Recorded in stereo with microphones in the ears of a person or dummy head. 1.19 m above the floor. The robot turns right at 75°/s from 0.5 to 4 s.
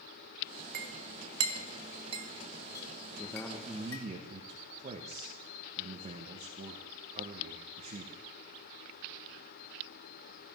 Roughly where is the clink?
Right.